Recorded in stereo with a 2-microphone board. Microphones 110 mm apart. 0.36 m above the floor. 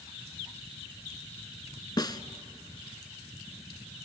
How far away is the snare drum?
About 0.7 m.